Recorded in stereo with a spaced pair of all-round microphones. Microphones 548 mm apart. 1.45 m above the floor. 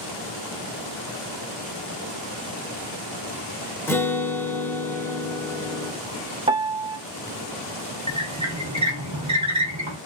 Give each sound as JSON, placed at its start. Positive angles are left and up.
{"t": 3.9, "sound": "a guitar", "side_deg": 5, "distance_m": 0.6}
{"t": 6.5, "sound": "a piano", "side_deg": -10, "distance_m": 0.6}
{"t": 8.1, "sound": "a squeak", "side_deg": -30, "distance_m": 0.9}